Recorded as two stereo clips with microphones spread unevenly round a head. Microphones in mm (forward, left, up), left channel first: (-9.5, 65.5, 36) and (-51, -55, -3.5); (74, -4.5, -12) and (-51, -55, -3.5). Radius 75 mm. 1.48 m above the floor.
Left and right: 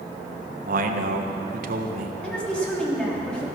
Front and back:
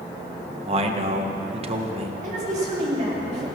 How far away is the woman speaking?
About 4 m.